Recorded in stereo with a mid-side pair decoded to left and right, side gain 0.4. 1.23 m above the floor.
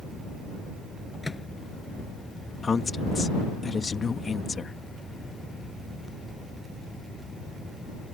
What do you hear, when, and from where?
1.2 s a microwave: 15° left
2.6 s a woman speaking: 35° left